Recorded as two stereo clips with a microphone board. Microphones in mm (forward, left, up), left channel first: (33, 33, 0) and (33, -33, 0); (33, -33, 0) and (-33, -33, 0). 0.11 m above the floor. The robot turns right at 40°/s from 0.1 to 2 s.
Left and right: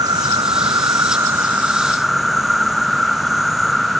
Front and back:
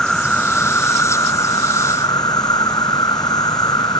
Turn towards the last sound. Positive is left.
turn(degrees=-5)